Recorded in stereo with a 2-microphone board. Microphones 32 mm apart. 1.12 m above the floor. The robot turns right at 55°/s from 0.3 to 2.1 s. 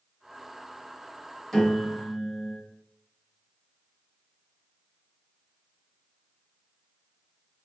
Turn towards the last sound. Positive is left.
turn(degrees=-160)